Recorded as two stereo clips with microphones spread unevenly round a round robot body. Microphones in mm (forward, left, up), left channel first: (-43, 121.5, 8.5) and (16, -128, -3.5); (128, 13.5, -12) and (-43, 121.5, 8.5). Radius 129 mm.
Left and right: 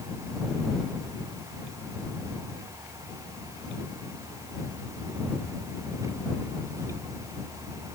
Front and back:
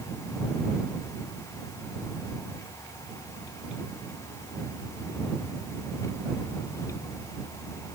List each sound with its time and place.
Only background noise.